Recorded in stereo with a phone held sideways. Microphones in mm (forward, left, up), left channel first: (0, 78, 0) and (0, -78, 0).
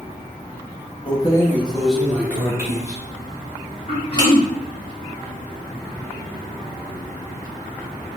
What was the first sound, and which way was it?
Keys jangling, 35° left (ahead or behind).